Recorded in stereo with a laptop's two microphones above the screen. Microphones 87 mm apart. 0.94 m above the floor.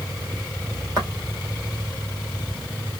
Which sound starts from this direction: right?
Footsteps, at 1.0 s.